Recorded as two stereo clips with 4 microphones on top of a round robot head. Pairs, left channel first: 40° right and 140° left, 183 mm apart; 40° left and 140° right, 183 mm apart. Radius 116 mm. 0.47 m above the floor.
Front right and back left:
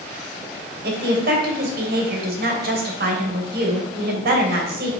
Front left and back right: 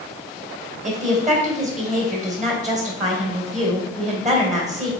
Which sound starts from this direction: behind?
A woman speaking, at 0.8 s.